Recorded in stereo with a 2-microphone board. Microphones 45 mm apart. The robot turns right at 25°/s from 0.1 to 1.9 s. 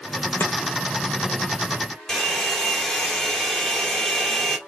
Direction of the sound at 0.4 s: 60° left (ahead or behind).